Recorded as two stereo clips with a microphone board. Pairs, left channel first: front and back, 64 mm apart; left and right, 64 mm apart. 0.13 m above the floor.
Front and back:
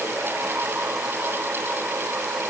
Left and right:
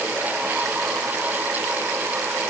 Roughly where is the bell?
No bell in this recording.